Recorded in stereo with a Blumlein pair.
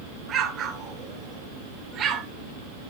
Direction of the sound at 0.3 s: 25° right.